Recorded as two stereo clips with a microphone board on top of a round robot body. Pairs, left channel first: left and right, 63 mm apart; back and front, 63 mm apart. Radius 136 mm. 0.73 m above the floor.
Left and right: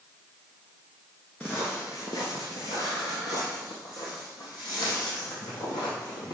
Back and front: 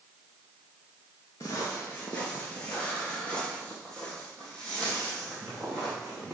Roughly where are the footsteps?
Behind left.